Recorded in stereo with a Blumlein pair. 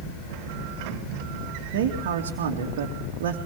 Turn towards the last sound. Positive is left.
turn(degrees=-55)